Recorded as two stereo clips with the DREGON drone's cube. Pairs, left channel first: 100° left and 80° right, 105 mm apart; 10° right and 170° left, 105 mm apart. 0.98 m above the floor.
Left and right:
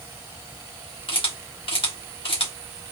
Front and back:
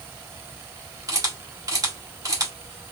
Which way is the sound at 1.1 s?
115° left.